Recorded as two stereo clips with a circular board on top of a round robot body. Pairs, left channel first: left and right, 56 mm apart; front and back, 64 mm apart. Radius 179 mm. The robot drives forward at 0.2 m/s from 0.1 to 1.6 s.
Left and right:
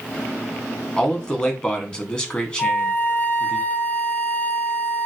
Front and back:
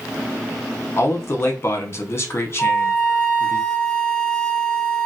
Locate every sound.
1.0 s a man speaking: 25° left, 1.1 m; by 3.6 s 30° left, 1.1 m
2.6 s a flute: 60° left, 0.9 m